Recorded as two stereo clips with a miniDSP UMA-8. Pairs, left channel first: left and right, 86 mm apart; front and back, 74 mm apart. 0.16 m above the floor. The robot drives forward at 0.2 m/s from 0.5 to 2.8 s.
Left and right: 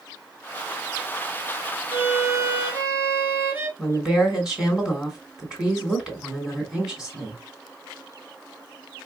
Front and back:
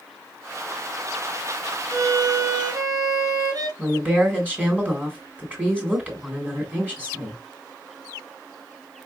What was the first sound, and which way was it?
A violin, 145° right.